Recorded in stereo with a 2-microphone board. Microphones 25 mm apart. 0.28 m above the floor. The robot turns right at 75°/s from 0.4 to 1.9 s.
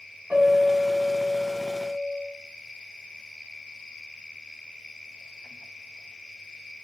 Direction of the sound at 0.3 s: 65° right.